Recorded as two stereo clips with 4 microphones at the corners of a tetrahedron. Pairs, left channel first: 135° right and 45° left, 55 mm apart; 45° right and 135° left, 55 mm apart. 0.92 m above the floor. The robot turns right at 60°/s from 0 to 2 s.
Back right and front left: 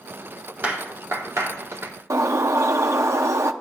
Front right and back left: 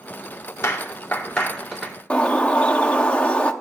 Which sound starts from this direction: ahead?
A clap, at 0.6 s.